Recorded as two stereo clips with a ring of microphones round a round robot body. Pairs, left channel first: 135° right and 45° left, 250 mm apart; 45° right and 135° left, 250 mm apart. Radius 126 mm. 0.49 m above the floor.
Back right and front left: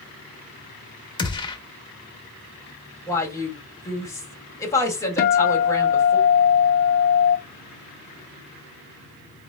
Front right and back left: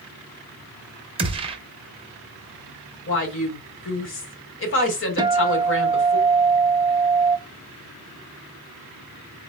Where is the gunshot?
175° left, 0.8 m.